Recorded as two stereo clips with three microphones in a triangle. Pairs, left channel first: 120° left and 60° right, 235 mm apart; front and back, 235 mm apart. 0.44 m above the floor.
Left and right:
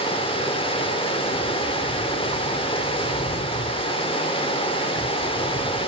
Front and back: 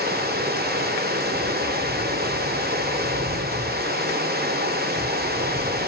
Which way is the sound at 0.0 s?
175° left.